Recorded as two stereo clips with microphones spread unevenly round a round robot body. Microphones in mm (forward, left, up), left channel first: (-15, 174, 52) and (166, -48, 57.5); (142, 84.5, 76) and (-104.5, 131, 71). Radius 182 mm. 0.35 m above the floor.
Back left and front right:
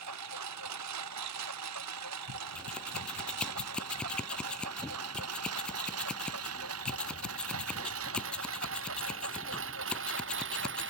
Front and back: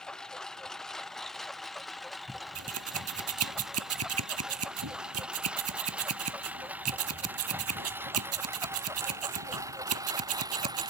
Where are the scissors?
145° right.